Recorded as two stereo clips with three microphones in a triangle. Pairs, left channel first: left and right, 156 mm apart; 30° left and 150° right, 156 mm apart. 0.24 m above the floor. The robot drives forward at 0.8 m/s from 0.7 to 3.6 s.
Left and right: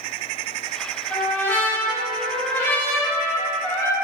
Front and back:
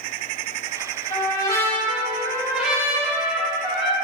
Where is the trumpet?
25° left, 1.7 m; by 4.0 s 165° left, 2.0 m.